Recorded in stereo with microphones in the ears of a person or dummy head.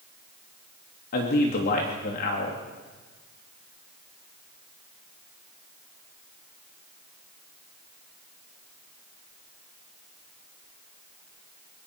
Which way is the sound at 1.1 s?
50° left (ahead or behind).